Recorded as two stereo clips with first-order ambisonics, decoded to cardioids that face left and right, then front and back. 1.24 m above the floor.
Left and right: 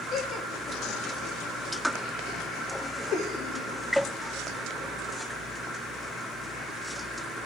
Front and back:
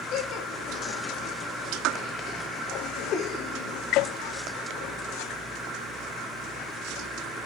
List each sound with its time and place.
0.1 s laughter: 40° left, 1.2 m; by 3.8 s 45° left, 3 m